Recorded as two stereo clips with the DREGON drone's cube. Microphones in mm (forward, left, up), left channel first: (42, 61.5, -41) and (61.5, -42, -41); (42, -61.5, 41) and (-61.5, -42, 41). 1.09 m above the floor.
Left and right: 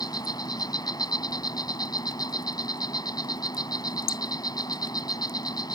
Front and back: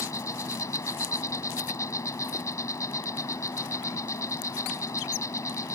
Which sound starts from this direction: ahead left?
An insect, at 0.0 s.